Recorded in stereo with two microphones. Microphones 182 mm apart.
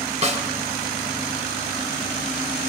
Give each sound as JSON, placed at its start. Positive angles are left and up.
{"t": 0.2, "sound": "a snare drum", "side_deg": -35, "distance_m": 3.0}